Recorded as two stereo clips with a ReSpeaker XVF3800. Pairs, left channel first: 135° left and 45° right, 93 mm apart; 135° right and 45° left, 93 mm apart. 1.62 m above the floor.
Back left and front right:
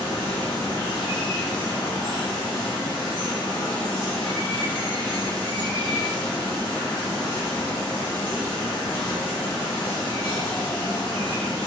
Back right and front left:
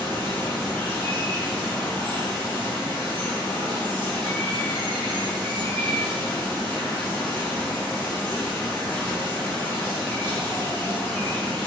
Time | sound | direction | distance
0.0 | running water | 160° left | 1.4 m